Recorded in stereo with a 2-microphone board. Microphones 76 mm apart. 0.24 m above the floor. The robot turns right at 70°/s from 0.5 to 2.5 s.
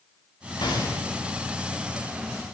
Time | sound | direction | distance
0.6 | a gunshot | 65° left (ahead or behind) | 9.5 m